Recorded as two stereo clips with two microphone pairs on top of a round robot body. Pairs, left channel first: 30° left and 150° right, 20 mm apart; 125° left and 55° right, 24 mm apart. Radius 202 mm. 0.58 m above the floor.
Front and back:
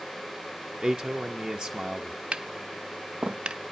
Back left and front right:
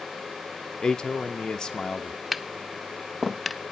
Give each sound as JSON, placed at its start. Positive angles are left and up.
{"t": 0.8, "sound": "a man speaking", "azimuth_deg": 180, "distance_m": 0.8}
{"t": 2.3, "sound": "tapping", "azimuth_deg": -145, "distance_m": 0.6}